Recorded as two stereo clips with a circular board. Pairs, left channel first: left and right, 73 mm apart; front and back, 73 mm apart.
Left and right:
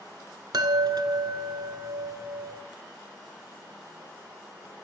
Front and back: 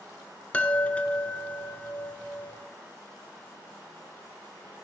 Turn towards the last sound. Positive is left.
turn(degrees=-70)